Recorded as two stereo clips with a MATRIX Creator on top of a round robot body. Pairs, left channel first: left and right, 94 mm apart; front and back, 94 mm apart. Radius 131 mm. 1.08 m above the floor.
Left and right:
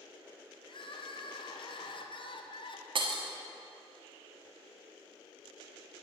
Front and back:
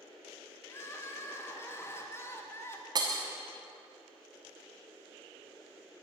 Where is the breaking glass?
130° right, 1.3 m.